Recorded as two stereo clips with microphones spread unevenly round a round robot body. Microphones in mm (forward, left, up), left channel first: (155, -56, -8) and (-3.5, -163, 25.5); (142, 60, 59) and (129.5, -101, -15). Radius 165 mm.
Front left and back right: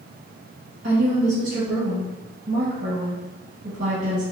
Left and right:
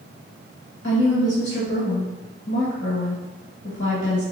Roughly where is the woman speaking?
Behind.